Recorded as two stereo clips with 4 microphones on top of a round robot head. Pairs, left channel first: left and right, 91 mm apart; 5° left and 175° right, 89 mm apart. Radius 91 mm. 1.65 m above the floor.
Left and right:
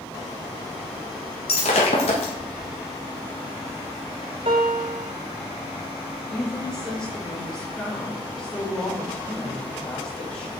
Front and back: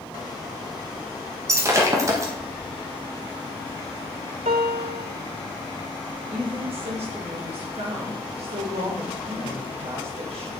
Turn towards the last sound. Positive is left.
turn(degrees=175)